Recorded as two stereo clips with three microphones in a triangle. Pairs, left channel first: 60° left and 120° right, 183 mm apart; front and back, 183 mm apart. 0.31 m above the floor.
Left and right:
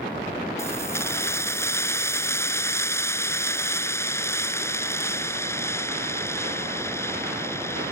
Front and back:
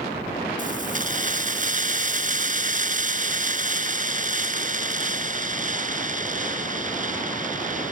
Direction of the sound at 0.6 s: 135° left.